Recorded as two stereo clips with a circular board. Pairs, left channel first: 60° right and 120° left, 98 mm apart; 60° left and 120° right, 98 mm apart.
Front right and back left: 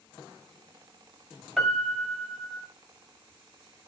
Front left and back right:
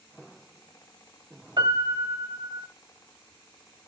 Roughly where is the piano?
Behind right.